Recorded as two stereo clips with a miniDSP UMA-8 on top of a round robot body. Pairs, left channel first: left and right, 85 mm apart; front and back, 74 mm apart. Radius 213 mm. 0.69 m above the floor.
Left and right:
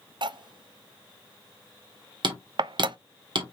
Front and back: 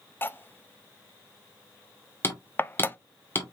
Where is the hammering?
60° right, 1.6 m.